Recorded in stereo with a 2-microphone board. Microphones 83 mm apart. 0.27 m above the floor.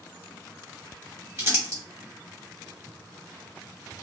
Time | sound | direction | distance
1.4 | crumpling | 30° right (ahead or behind) | 1.4 m